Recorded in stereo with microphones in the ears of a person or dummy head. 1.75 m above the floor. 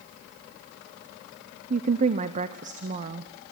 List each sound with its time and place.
1.7 s a woman speaking: 45° right (ahead or behind), 0.8 m